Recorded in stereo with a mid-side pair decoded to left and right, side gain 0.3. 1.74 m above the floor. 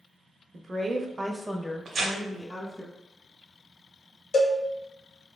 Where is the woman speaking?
65° right, 0.6 m; by 2.9 s 30° left, 1.3 m.